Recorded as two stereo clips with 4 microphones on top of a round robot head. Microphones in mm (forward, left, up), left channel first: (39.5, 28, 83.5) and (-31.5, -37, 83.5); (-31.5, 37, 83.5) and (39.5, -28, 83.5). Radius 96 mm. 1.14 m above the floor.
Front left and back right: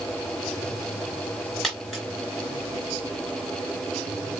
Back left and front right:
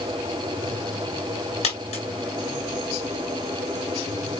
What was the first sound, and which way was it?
A dropped coin, 135° left.